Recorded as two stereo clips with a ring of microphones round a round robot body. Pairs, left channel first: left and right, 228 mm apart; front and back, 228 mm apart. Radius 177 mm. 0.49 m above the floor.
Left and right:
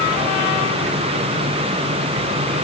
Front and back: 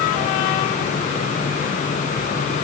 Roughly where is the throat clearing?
I don't hear throat clearing.